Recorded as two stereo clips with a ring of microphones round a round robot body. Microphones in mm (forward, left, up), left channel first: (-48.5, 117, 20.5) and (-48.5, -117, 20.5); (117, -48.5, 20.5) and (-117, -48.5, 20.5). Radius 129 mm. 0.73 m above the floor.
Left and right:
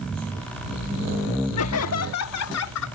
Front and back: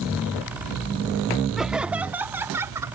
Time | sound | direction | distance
1.6 | laughter | 90° left | ?